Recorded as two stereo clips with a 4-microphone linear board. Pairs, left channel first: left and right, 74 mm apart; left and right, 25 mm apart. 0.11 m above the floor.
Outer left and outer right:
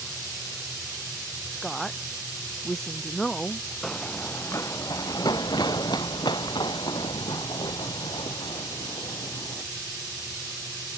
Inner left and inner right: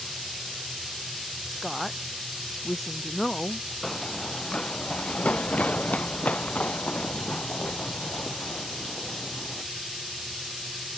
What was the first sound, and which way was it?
A woman speaking, 5° left (ahead or behind).